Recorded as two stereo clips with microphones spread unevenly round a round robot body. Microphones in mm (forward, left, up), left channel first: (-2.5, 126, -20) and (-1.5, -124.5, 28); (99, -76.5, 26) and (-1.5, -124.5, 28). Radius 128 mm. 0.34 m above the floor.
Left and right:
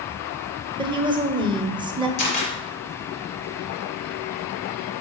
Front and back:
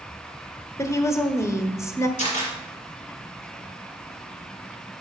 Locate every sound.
0.8 s a woman speaking: 15° right, 1.0 m
2.2 s a camera shutter: 80° left, 3.5 m